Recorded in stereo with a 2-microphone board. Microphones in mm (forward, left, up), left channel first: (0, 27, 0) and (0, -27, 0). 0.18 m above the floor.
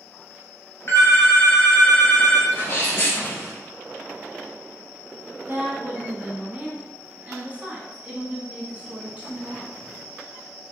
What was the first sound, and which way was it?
A phone ringing, 45° left (ahead or behind).